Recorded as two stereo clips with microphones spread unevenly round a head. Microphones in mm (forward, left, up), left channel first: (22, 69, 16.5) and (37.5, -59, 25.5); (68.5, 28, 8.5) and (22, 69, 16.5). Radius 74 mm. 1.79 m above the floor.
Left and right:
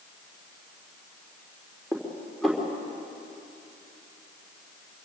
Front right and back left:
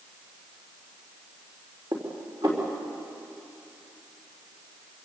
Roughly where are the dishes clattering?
Behind.